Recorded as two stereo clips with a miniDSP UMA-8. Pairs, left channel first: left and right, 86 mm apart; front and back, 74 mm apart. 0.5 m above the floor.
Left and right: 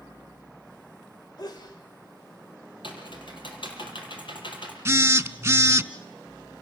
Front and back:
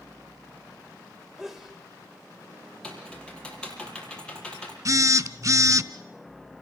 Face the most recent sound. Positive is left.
turn(degrees=-145)